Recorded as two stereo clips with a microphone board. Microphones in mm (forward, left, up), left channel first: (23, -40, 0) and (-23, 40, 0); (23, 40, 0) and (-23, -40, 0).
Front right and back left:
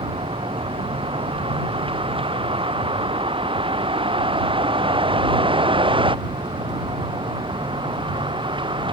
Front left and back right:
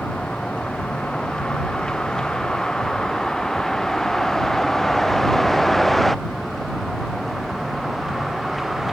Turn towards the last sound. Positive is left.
turn(degrees=150)